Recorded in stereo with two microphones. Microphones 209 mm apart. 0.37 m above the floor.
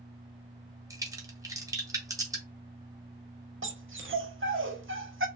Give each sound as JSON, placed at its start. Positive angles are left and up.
{"t": 0.9, "sound": "a crack", "side_deg": -15, "distance_m": 0.6}
{"t": 3.6, "sound": "a dog barking", "side_deg": -70, "distance_m": 0.5}